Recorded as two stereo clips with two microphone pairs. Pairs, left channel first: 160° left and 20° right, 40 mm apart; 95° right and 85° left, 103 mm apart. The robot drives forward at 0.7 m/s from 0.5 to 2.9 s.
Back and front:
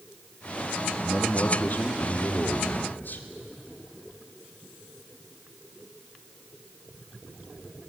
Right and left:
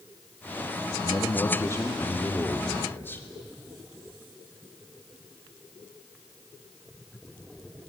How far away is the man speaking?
About 1.5 m.